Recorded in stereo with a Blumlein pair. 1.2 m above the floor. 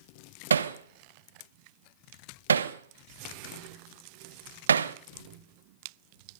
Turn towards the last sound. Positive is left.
turn(degrees=-70)